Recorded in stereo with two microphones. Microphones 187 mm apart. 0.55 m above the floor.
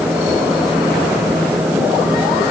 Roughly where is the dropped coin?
No dropped coin in this recording.